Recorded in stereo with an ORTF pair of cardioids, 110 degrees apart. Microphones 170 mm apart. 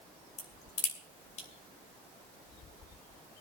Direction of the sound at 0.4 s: 45° left.